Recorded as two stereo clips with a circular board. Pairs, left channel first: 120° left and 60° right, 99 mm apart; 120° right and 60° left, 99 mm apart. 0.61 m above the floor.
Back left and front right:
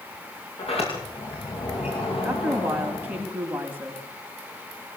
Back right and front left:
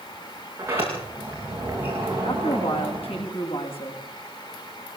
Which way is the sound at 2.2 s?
135° right.